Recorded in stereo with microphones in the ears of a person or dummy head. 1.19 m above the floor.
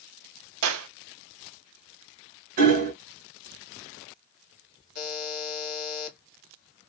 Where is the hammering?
45° right (ahead or behind), 1.6 m.